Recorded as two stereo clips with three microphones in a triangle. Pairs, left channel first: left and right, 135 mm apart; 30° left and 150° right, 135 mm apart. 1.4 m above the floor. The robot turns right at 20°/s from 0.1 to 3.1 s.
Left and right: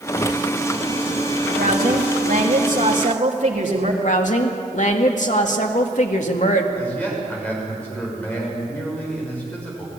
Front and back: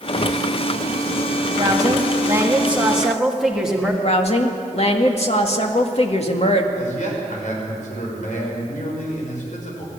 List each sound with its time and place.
1.6 s a woman speaking: 95° right, 3 m; by 3.9 s 65° right, 3 m
4.0 s a woman speaking: 65° left, 2.0 m
6.8 s a man speaking: 10° left, 6.5 m